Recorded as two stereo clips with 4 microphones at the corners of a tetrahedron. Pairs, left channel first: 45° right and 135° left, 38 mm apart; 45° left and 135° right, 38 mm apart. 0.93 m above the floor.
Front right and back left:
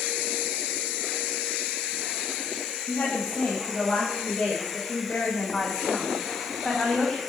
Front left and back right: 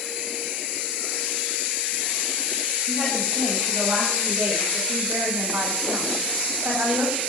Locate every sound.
2.9 s a woman speaking: 80° right, 4 m; by 7.2 s 120° right, 5 m